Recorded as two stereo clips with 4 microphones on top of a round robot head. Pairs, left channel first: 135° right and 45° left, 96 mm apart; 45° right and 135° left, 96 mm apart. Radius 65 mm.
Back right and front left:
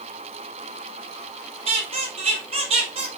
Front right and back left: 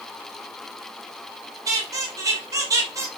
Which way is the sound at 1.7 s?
80° left.